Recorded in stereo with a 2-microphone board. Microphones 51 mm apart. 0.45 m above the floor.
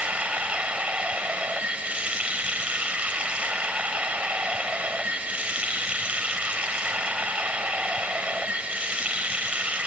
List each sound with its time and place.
0.0 s running water: 25° right (ahead or behind), 1.0 m